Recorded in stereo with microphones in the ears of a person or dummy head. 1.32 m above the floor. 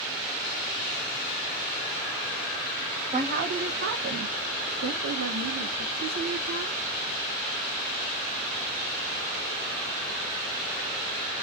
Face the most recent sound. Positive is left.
turn(degrees=-50)  # may be behind; listen again after turning